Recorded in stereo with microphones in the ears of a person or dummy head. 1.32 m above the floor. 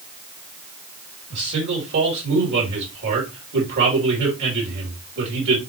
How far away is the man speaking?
About 4 m.